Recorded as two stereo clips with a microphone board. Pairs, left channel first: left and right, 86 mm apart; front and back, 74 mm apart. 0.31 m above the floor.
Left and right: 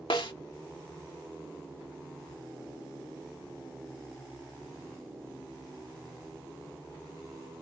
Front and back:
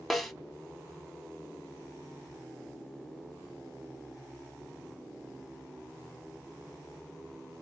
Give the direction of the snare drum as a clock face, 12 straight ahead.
9 o'clock.